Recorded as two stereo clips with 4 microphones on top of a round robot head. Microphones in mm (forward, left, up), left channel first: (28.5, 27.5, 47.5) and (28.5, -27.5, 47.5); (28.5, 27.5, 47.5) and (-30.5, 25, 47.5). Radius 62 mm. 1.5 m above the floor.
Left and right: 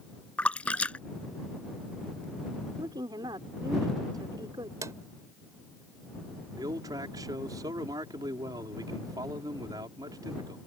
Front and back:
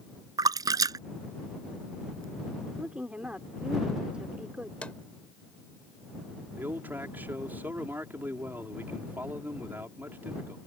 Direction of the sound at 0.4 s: 165° left.